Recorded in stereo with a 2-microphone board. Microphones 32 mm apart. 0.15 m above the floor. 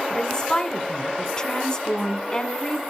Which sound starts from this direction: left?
A woman speaking, at 0.1 s.